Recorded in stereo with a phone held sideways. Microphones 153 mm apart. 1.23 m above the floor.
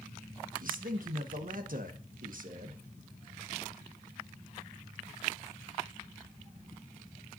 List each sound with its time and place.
0.6 s a man speaking: 65° right (ahead or behind), 1.2 m